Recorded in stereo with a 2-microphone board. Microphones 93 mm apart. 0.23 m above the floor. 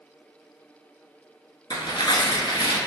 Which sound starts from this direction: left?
Tearing paper, at 1.7 s.